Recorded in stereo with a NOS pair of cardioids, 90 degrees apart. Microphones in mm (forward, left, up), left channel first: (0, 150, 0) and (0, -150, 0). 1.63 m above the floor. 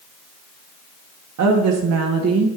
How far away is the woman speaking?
About 1.9 m.